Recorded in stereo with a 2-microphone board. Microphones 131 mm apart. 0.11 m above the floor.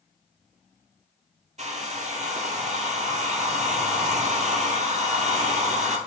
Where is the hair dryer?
65° right (ahead or behind), 0.6 m.